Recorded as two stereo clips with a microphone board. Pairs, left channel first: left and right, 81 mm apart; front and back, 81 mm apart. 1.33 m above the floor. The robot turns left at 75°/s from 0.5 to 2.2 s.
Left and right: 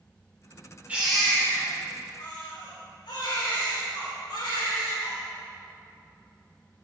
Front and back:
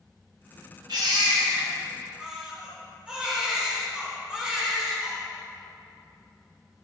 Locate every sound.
0.9 s a baby crying: 160° right, 3.5 m; by 5.2 s 105° left, 3.5 m